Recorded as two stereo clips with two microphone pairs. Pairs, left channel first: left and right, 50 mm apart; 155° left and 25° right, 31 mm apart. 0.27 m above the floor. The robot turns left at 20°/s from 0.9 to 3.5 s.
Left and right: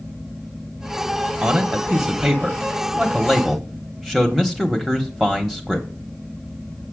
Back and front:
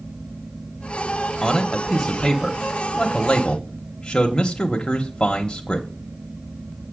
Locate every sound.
1.4 s a man speaking: 135° right, 1.0 m; by 5.9 s straight behind, 1.0 m